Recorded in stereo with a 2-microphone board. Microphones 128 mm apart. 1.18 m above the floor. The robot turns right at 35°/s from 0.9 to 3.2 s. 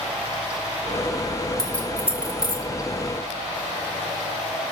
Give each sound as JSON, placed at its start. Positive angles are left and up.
{"t": 1.6, "sound": "keys jangling", "side_deg": 5, "distance_m": 2.5}